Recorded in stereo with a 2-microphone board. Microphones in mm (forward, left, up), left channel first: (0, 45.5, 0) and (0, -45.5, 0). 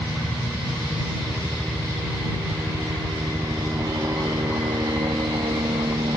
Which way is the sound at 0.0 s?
5° right (ahead or behind).